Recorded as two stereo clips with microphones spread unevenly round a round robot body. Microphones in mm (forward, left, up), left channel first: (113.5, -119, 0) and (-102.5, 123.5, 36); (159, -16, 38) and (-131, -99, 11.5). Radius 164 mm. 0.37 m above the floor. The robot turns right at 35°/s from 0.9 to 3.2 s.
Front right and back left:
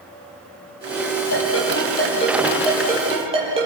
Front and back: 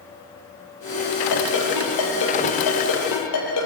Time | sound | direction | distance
1.3 | a ringtone | 5° right | 7.5 m